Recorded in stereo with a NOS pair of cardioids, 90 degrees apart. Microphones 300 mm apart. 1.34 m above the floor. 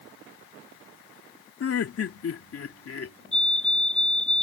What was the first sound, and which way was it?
Laughter, 50° left.